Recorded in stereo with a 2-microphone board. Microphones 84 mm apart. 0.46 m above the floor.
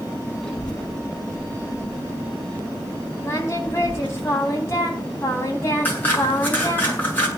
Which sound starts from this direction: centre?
A child speaking, at 0.4 s.